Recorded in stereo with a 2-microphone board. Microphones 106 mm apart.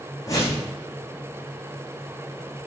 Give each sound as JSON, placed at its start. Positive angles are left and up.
{"t": 0.3, "sound": "a whoosh", "side_deg": 30, "distance_m": 5.5}